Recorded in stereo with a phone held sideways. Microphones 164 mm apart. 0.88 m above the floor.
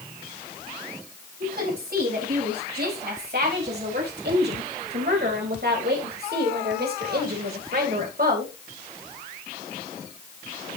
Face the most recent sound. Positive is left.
turn(degrees=-60)  # may be behind; listen again after turning